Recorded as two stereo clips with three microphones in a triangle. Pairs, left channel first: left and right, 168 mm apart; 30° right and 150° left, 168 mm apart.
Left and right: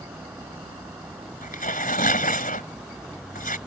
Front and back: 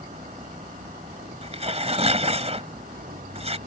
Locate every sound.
0.0 s a vehicle: 170° right; by 3.7 s 175° right
1.4 s tearing paper: 105° left